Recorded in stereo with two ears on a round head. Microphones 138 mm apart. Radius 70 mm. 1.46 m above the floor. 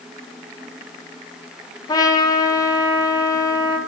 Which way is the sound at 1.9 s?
25° left (ahead or behind).